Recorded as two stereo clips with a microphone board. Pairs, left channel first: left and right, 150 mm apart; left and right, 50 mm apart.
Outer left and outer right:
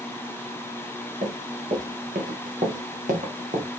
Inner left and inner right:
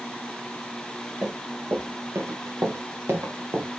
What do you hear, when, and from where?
1.2 s running footsteps: 80° right, 5 m; by 3.7 s 55° right (ahead or behind), 3 m